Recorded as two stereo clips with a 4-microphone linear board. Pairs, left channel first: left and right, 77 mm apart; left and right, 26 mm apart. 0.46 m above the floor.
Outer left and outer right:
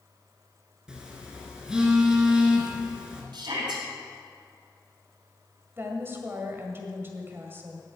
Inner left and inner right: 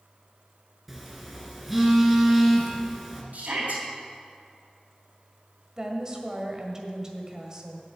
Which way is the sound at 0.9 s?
10° right (ahead or behind).